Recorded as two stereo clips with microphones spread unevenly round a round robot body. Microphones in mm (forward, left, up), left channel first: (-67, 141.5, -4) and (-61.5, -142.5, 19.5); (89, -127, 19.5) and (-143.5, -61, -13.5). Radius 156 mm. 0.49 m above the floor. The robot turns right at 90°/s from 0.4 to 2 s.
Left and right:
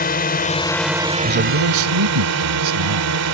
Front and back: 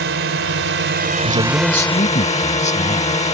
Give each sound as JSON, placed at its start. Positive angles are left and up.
{"t": 0.0, "sound": "a drone", "azimuth_deg": 140}
{"t": 1.2, "sound": "a man speaking", "azimuth_deg": -150}